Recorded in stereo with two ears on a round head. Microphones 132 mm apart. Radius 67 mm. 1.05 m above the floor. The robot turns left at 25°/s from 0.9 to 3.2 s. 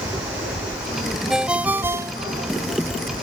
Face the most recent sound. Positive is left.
turn(degrees=-50)